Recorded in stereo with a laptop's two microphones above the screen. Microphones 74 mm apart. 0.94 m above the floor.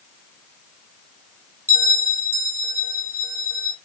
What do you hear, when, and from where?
1.7 s a bell: 30° right (ahead or behind), 0.7 m